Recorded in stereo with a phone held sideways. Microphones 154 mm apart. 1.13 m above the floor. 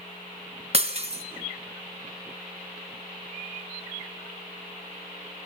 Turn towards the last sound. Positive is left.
turn(degrees=-45)  # may be behind; listen again after turning